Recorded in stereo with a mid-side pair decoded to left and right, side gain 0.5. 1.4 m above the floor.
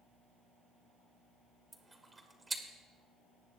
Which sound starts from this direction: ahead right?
Chewing, at 1.7 s.